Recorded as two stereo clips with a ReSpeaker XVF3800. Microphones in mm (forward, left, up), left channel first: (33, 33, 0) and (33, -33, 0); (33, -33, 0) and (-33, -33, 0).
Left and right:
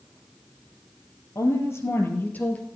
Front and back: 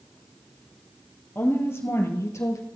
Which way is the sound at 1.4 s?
55° left.